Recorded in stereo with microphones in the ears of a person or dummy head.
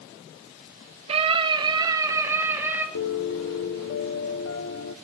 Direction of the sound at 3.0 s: 75° left (ahead or behind).